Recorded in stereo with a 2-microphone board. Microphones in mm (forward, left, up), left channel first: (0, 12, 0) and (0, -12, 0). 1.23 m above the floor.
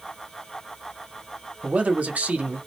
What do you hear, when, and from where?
1.6 s a man speaking: 75° right (ahead or behind), 0.7 m